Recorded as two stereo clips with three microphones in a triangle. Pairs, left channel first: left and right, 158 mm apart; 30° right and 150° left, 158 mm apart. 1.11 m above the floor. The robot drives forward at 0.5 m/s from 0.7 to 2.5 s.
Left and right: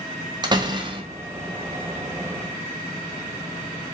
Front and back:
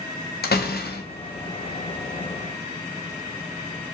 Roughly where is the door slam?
Ahead right.